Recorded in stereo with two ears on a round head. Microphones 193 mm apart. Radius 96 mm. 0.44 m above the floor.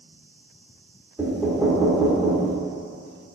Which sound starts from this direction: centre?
Knocking, at 1.2 s.